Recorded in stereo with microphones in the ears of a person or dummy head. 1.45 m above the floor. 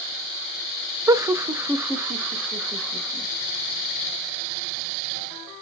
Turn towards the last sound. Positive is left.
turn(degrees=-10)  # may be behind; listen again after turning